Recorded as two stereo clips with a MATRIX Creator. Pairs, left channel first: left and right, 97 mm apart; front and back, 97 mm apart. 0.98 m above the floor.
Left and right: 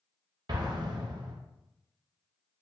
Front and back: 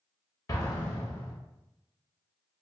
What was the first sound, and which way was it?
An explosion, 50° right.